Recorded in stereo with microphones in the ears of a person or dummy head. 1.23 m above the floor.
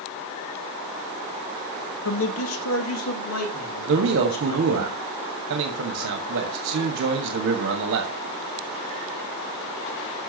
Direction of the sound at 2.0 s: 65° left (ahead or behind).